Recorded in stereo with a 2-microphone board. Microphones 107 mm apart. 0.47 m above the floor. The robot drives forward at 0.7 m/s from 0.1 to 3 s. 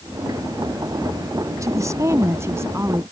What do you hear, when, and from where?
1.6 s a woman speaking: 30° right (ahead or behind); by 3.0 s 25° right (ahead or behind)